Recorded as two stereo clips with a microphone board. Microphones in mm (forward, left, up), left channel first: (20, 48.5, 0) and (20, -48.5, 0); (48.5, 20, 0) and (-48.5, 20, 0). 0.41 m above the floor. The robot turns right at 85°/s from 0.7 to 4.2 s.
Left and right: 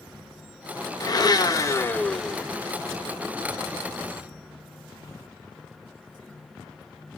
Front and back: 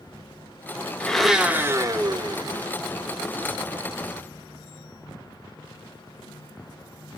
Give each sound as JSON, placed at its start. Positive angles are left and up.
{"t": 1.0, "sound": "a blender", "azimuth_deg": 70, "distance_m": 0.5}